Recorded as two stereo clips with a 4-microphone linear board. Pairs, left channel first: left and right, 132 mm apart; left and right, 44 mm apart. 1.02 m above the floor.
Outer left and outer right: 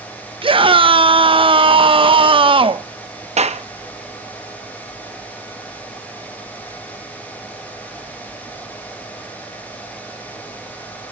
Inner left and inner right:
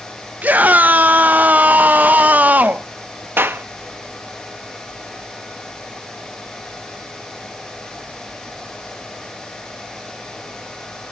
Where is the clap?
55° right (ahead or behind), 0.7 m.